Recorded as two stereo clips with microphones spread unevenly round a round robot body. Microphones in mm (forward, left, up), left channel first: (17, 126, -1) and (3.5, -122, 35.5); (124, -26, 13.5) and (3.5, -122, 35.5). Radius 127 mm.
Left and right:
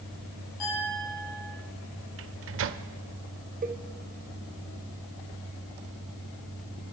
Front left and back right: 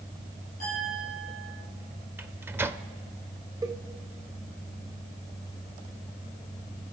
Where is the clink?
100° left, 9 m.